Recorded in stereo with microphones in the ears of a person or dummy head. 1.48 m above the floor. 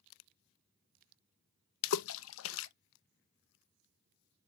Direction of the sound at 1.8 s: 75° left (ahead or behind).